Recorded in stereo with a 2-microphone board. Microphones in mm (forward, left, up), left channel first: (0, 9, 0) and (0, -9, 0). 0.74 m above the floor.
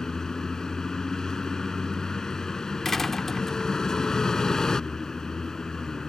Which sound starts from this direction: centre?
A door slam, at 2.9 s.